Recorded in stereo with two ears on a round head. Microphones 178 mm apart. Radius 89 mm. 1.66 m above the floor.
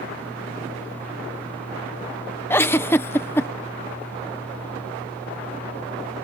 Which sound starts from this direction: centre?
A giggle, at 2.5 s.